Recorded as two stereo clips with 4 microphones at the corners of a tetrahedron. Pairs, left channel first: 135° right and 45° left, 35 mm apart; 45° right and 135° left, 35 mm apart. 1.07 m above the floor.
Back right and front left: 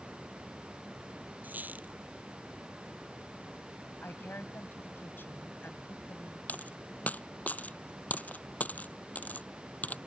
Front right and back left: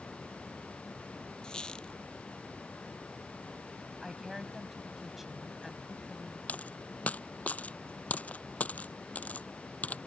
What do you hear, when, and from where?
1.4 s a squeak: 20° left
4.0 s a woman speaking: 140° right
6.5 s a dropped coin: 90° right